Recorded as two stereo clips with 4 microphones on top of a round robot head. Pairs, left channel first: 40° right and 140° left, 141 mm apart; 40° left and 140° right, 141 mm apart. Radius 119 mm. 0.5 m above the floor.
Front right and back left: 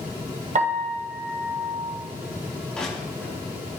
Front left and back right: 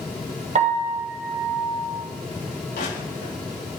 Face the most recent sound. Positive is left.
turn(degrees=45)